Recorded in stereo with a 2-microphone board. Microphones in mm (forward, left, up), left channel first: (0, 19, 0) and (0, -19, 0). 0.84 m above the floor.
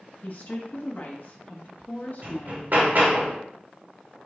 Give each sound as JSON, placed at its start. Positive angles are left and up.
{"t": 0.2, "sound": "a woman speaking", "side_deg": 55, "distance_m": 1.2}
{"t": 2.2, "sound": "hammering", "side_deg": -50, "distance_m": 1.2}